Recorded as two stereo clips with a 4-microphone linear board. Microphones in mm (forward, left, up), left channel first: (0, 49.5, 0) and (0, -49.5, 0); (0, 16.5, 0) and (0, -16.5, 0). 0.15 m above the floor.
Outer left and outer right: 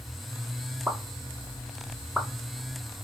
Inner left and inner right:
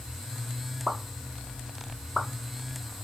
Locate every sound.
0.9 s a pop: 5° right (ahead or behind), 0.8 m